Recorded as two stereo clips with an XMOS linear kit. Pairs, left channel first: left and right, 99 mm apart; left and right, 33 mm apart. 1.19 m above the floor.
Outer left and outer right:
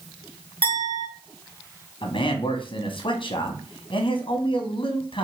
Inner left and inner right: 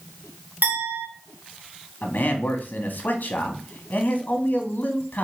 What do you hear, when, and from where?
0.6 s a clink: 60° right (ahead or behind), 2.5 m
2.0 s a man speaking: 60° left (ahead or behind), 1.0 m